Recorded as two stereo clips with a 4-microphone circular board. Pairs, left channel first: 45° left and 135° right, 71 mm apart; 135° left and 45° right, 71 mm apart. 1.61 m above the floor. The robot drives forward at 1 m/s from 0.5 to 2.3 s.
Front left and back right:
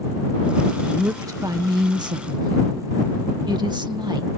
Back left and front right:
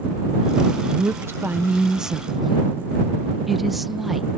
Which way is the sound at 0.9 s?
85° right.